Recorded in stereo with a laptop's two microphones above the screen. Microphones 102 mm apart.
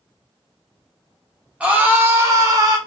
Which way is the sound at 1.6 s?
10° right (ahead or behind).